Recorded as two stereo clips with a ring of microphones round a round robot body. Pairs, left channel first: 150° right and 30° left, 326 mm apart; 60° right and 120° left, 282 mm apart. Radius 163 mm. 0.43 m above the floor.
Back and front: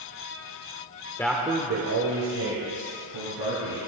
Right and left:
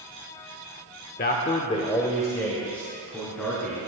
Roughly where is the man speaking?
Right.